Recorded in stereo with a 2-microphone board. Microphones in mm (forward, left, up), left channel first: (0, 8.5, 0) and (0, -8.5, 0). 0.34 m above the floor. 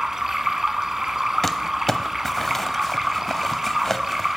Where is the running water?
30° right (ahead or behind), 0.8 m.